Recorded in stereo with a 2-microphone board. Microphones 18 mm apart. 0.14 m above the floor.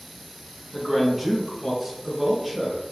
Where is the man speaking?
15° right (ahead or behind), 1.0 m; by 2.8 s 20° right (ahead or behind), 1.8 m.